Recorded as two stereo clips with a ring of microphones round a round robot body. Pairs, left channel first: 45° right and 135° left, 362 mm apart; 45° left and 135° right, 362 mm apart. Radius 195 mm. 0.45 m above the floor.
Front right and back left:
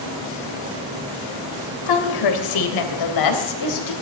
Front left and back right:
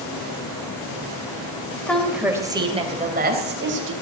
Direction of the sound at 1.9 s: 40° right.